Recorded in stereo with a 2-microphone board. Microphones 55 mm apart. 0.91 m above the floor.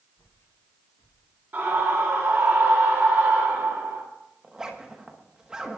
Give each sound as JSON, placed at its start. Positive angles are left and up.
{"t": 0.2, "sound": "footsteps", "side_deg": 60, "distance_m": 4.0}
{"t": 1.5, "sound": "a scream", "side_deg": -35, "distance_m": 1.4}
{"t": 4.4, "sound": "a zipper", "side_deg": -10, "distance_m": 1.2}